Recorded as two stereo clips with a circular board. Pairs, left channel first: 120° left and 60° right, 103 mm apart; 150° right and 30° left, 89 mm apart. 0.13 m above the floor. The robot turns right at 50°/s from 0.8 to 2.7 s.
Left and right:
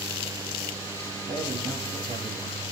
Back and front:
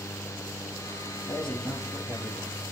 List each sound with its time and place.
1.3 s a man speaking: 75° right, 4.5 m; by 2.6 s 10° right, 4.5 m